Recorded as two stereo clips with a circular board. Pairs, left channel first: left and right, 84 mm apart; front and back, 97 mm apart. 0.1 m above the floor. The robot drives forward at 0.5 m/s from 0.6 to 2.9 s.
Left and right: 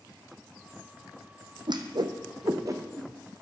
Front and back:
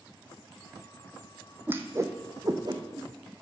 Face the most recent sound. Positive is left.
turn(degrees=-140)